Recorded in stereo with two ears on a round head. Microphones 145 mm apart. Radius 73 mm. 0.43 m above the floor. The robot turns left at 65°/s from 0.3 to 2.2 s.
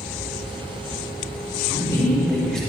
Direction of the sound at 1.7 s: 35° left.